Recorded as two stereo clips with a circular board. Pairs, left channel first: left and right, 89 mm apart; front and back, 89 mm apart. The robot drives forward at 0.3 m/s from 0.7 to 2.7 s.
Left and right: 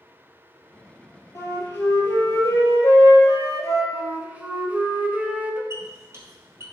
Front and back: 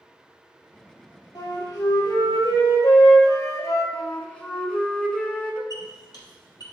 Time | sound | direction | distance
1.4 | a flute | 35° left | 3 m
3.9 | a flute | 60° right | 1.1 m
5.7 | a squeak | 35° right | 2.5 m